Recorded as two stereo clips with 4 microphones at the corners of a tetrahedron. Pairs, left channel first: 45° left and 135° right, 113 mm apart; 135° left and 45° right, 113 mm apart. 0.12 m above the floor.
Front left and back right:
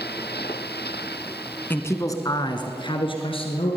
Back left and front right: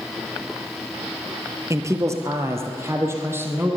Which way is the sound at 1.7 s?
10° right.